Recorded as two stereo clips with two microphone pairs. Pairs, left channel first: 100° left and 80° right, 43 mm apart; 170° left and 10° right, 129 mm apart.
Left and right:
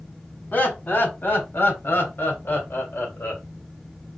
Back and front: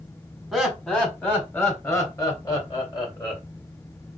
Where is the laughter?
85° left, 1.6 m; by 3.4 s 120° left, 2.5 m.